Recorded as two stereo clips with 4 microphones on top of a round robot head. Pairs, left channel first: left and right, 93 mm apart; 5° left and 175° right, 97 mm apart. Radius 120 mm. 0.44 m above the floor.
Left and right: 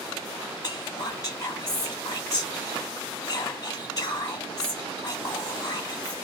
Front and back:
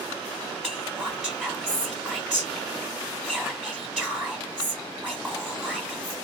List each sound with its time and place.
0.6 s whispering: 95° left, 1.3 m